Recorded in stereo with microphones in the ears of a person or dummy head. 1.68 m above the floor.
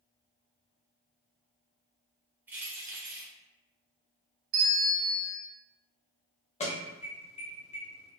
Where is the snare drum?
No snare drum in this recording.